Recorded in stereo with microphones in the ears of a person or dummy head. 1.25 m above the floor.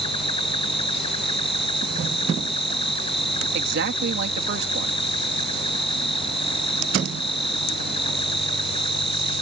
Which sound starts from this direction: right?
A man speaking, at 3.5 s.